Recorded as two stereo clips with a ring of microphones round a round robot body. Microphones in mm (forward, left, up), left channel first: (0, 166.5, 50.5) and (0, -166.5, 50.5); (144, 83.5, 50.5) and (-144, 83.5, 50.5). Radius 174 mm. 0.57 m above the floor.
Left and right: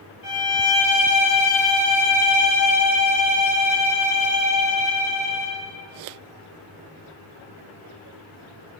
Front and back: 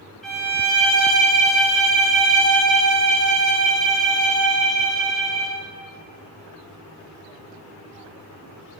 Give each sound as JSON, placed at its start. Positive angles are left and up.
{"t": 0.2, "sound": "a violin", "azimuth_deg": 90, "distance_m": 3.0}